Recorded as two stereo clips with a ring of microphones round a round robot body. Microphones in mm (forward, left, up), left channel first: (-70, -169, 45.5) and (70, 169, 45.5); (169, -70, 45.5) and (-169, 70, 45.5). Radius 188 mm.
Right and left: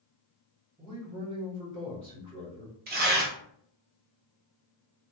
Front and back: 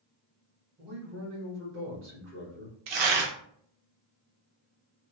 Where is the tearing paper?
135° left, 0.7 m.